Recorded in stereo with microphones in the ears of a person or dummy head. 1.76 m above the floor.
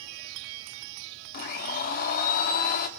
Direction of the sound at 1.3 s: 50° left (ahead or behind).